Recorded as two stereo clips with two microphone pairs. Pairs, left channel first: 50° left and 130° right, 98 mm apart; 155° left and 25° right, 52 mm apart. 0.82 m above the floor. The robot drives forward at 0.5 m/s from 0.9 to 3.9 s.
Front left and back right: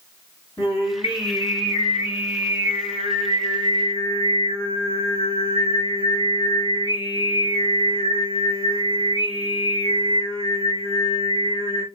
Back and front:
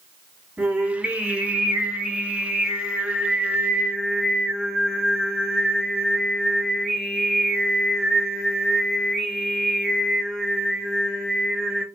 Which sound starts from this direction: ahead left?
Singing, at 0.6 s.